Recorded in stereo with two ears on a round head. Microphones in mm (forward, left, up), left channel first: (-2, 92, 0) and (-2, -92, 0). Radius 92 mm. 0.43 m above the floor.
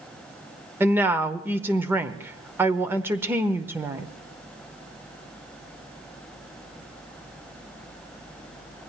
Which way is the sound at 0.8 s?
10° right (ahead or behind).